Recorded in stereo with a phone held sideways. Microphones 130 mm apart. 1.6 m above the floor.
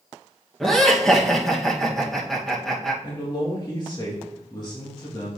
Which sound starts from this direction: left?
A man speaking, at 3.0 s.